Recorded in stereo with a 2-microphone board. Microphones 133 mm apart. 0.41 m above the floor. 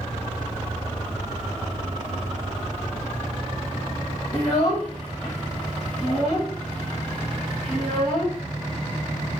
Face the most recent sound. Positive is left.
turn(degrees=20)  # may be behind; listen again after turning